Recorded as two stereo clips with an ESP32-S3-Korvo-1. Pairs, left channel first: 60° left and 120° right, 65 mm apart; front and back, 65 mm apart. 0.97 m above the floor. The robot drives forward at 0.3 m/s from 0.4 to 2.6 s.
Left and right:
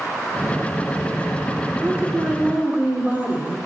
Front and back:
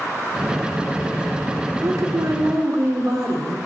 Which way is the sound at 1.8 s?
Straight behind.